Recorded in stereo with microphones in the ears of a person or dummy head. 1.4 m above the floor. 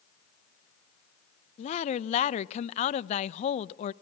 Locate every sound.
1.6 s a woman speaking: 35° left (ahead or behind), 0.8 m